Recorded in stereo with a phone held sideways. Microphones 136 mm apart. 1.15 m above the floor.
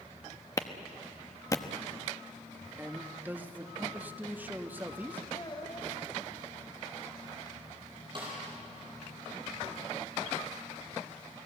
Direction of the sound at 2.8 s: 15° right (ahead or behind).